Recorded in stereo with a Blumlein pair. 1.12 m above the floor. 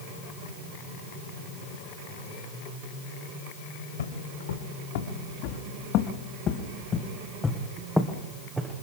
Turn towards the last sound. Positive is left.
turn(degrees=-20)